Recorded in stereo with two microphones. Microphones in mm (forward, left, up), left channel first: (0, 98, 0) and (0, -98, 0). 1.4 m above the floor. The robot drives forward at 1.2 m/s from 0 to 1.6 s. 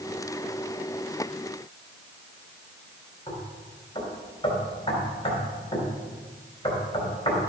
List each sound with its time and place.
3.3 s knocking: 25° left (ahead or behind), 3.5 m